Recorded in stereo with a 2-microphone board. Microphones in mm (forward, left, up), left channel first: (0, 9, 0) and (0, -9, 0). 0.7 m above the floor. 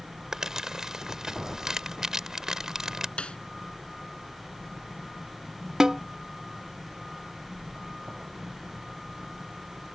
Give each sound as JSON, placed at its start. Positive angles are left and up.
{"t": 0.3, "sound": "crumpling", "side_deg": -30}
{"t": 3.2, "sound": "a snare drum", "side_deg": 80}
{"t": 5.8, "sound": "a snare drum", "side_deg": -35}